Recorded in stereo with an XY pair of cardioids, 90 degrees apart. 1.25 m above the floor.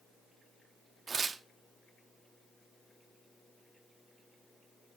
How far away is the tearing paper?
About 0.8 m.